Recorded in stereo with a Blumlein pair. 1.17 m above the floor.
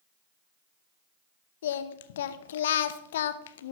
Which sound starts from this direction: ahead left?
Singing, at 1.6 s.